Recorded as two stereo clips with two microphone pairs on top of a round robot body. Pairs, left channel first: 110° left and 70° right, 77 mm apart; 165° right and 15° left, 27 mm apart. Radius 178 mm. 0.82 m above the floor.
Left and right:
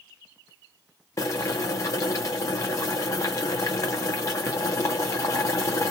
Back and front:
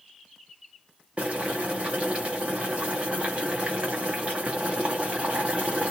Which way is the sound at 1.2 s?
55° left.